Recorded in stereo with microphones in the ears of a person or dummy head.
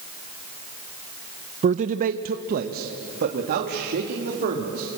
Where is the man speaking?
40° right (ahead or behind), 0.5 m; by 5.0 s 50° right (ahead or behind), 3.5 m.